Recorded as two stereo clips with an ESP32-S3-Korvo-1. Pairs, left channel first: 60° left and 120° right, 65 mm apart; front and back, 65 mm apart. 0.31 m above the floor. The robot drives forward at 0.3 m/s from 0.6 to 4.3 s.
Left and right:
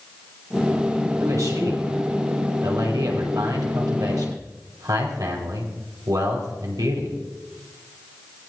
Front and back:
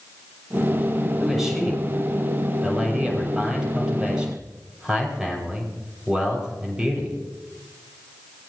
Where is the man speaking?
95° right, 6.5 m; by 7.2 s 105° right, 6.5 m.